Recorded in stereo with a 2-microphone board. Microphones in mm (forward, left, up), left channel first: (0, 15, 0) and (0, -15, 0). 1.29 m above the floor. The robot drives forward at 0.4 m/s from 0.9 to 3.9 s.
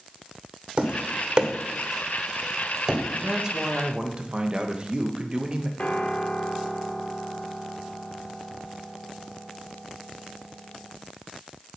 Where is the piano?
45° left (ahead or behind), 1.3 m.